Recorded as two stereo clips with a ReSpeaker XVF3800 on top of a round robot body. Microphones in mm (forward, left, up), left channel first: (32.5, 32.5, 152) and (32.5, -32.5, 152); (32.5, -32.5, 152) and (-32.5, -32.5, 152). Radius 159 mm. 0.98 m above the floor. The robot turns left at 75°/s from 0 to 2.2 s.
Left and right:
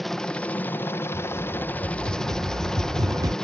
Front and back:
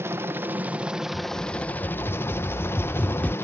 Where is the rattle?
10° left; by 3.3 s 70° right.